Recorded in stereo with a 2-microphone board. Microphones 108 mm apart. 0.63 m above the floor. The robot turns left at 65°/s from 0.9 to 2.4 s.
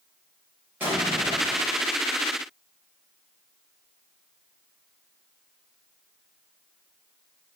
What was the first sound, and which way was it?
An explosion, 20° right.